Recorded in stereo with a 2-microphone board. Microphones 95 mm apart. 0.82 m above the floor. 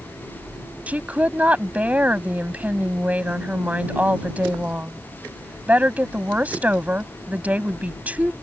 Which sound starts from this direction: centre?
A woman speaking, at 0.9 s.